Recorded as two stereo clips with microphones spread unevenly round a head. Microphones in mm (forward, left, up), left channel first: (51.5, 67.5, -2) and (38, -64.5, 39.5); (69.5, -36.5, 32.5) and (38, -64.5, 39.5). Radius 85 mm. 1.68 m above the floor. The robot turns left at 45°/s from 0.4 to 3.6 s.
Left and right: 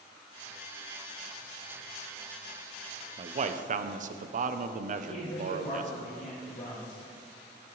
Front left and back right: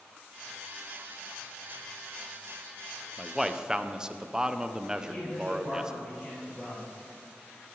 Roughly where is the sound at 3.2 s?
Ahead right.